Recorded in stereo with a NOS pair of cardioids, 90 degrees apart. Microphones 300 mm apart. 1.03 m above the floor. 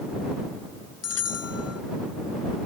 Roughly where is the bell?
Ahead left.